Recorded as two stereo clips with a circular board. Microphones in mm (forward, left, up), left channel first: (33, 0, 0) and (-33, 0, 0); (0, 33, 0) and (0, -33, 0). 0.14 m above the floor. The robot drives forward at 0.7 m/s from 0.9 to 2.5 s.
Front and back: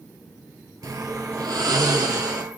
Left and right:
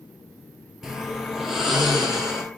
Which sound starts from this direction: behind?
Snoring, at 0.8 s.